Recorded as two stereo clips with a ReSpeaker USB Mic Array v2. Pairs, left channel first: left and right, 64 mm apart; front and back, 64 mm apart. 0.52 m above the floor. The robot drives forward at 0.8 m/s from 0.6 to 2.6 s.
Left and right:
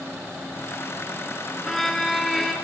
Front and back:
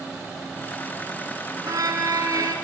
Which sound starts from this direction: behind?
A violin, at 1.6 s.